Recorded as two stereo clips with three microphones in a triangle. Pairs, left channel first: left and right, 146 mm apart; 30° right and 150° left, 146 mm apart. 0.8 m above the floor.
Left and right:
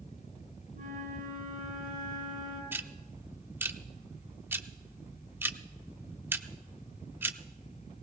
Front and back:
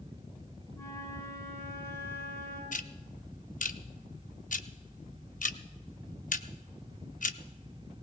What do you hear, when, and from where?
0.7 s a flute: 95° right, 7 m
2.7 s ticking: 15° right, 0.6 m